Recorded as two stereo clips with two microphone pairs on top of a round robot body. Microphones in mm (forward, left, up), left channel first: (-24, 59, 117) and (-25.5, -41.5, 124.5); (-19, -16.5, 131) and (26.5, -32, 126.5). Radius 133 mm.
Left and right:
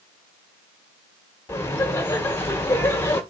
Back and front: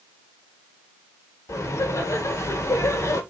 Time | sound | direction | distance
1.5 | laughter | 155° left | 1.1 m